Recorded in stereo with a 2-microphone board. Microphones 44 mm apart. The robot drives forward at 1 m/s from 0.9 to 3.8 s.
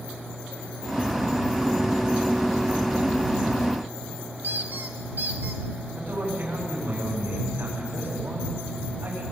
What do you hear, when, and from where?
4.4 s a squeak: 55° right (ahead or behind), 1.2 m
5.9 s a man speaking: 60° right (ahead or behind), 9.5 m